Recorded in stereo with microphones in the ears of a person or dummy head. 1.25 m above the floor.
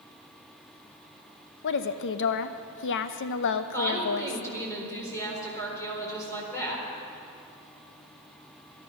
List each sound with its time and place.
1.6 s a woman speaking: 65° left (ahead or behind), 0.8 m
3.7 s a woman speaking: 10° left (ahead or behind), 4.5 m